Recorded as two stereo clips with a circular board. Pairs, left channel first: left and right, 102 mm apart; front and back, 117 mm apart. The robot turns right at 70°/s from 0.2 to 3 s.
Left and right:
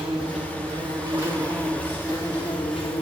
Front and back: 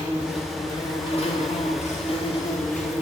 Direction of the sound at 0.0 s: 100° right.